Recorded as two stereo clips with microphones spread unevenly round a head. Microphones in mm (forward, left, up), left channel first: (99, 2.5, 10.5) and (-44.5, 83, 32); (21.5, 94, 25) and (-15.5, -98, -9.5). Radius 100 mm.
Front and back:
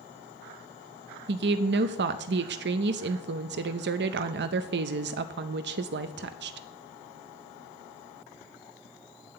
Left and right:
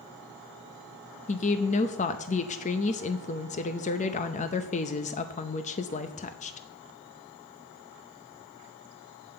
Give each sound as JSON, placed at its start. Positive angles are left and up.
{"t": 1.3, "sound": "a woman speaking", "azimuth_deg": 135, "distance_m": 0.6}